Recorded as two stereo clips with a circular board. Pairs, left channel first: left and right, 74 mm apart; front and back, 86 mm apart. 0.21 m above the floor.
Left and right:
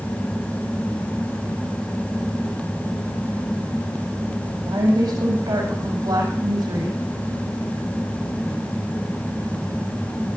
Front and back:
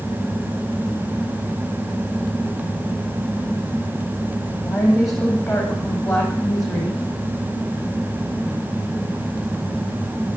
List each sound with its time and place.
4.7 s a woman speaking: 85° right, 7.5 m